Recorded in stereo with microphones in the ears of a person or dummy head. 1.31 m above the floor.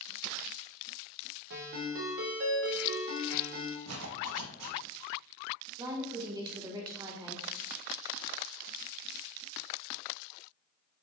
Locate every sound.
1.5 s a ringtone: 65° right (ahead or behind), 0.6 m
3.9 s a zipper: 90° right, 0.5 m
5.8 s a woman speaking: 25° right (ahead or behind), 0.7 m